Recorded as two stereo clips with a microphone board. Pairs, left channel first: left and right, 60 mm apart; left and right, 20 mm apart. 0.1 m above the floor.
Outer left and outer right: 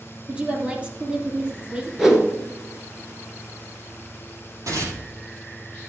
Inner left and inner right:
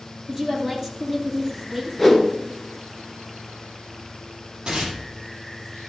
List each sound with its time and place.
0.3 s a woman speaking: 20° right (ahead or behind), 3 m
2.0 s a whoosh: 5° right (ahead or behind), 1.7 m
4.7 s tearing paper: 60° right (ahead or behind), 3.5 m